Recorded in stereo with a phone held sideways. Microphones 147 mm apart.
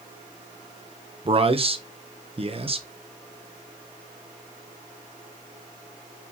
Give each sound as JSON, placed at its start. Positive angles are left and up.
{"t": 1.2, "sound": "a man speaking", "side_deg": -40, "distance_m": 0.8}